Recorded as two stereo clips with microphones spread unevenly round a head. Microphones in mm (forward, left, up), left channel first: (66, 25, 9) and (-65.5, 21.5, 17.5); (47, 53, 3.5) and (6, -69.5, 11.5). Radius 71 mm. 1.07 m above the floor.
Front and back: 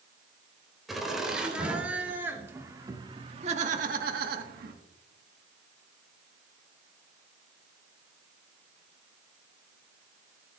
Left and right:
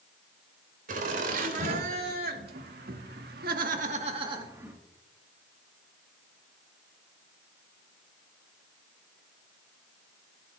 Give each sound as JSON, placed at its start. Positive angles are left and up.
{"t": 0.9, "sound": "laughter", "azimuth_deg": -90, "distance_m": 4.0}